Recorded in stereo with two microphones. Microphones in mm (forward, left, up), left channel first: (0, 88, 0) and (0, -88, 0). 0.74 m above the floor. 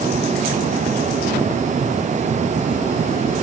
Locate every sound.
Only background noise.